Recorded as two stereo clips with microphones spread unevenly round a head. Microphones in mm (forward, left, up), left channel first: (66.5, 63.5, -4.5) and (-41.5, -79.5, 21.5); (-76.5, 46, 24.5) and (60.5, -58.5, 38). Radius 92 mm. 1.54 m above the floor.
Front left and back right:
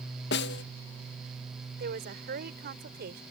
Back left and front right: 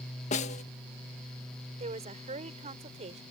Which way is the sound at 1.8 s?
90° right.